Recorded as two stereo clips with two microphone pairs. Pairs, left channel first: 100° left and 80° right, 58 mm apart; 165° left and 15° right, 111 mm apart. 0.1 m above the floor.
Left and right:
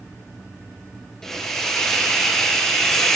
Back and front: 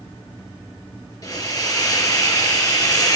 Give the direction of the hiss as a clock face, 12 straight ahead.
6 o'clock.